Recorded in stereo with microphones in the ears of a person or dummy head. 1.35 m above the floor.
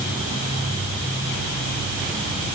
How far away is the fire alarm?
No fire alarm in this recording.